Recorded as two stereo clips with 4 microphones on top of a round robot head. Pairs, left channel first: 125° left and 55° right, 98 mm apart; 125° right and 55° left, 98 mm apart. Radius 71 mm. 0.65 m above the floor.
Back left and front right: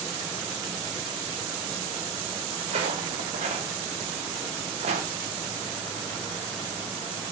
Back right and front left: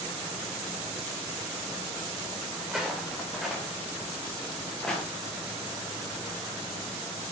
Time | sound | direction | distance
2.6 | footsteps | 30° right | 4 m